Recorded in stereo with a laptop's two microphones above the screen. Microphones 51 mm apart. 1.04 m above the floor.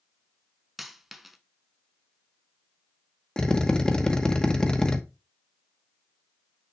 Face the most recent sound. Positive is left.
turn(degrees=15)  # may be behind; listen again after turning